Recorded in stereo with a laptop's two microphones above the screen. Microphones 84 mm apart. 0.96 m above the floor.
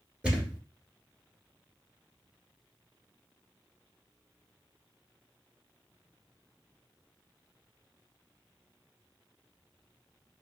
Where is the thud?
10° right (ahead or behind), 1.6 m.